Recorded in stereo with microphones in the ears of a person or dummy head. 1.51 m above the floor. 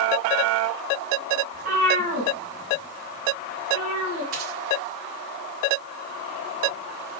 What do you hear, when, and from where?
1.5 s a cat meowing: 45° right (ahead or behind), 7.5 m; by 4.2 s 30° right (ahead or behind), 9 m
4.3 s a dropped coin: 45° right (ahead or behind), 1.5 m